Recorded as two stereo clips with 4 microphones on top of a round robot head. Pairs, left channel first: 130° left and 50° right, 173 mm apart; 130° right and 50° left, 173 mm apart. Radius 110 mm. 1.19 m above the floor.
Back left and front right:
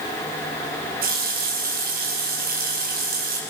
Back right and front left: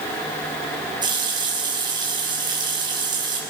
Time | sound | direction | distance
1.0 | a running tap | 15° right | 5.5 m